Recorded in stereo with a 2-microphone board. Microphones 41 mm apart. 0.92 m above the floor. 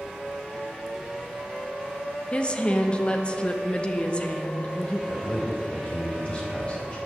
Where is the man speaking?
25° left (ahead or behind), 4 m.